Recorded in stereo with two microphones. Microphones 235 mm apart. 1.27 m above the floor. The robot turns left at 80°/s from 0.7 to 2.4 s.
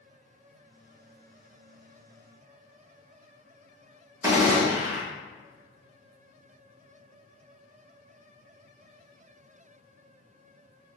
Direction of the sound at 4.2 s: 10° right (ahead or behind).